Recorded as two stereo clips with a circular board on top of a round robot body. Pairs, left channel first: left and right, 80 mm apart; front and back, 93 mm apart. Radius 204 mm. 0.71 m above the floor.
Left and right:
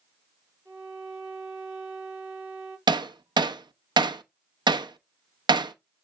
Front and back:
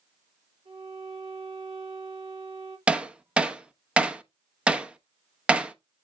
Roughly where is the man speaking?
I don't hear a man speaking.